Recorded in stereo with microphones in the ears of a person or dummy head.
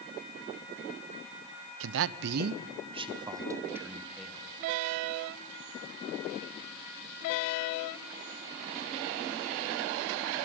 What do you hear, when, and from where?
1.8 s a man speaking: 65° right (ahead or behind), 0.7 m; by 4.5 s centre (ahead or behind), 1.5 m